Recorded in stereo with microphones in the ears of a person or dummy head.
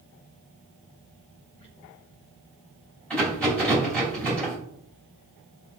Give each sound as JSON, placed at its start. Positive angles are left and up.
{"t": 1.6, "sound": "a squeak", "side_deg": 30, "distance_m": 1.6}
{"t": 3.1, "sound": "a rattle", "side_deg": 5, "distance_m": 3.0}